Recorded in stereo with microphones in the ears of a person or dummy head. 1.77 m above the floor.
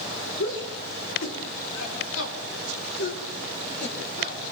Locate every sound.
0.4 s a shout: 65° left (ahead or behind), 5.5 m; by 4.4 s 55° left (ahead or behind), 5.5 m